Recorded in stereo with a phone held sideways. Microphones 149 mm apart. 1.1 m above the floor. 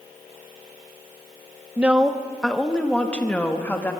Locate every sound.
1.8 s a woman speaking: 10° right (ahead or behind), 0.9 m; by 3.9 s 10° left (ahead or behind), 2 m